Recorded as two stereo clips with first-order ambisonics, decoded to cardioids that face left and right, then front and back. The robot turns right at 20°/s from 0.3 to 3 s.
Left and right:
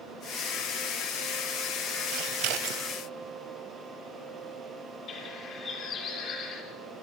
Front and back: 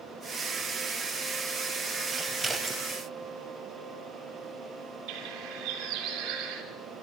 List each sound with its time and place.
2.1 s scissors: 100° right, 1.6 m; by 2.8 s 85° right, 1.6 m
5.1 s a bird: 145° left, 3.5 m